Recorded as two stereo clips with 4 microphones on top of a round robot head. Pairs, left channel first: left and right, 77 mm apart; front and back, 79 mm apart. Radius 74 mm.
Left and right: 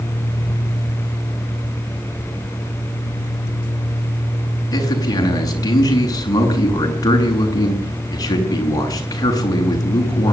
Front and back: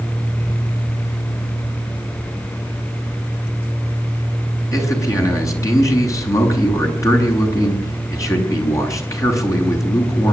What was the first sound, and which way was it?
A man speaking, 50° left.